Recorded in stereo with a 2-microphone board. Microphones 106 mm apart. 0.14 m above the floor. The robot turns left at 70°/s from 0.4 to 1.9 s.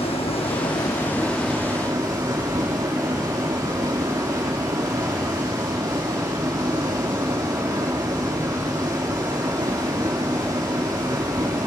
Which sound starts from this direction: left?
Running water, at 0.0 s.